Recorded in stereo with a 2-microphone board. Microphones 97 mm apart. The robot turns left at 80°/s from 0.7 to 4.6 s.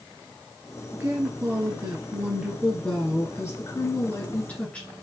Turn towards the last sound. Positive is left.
turn(degrees=25)